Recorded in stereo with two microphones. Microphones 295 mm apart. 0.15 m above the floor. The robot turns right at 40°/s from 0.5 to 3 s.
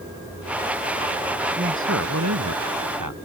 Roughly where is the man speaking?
Behind right.